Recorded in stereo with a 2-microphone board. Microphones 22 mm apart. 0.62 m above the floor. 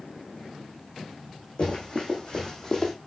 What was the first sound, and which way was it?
Running footsteps, 45° left (ahead or behind).